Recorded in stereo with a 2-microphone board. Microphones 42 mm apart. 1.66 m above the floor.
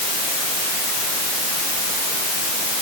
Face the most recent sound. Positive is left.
No sound to turn to.